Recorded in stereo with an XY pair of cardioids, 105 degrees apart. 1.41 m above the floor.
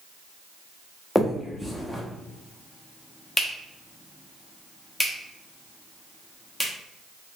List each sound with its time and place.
1.1 s a finger snap: 5° left, 0.8 m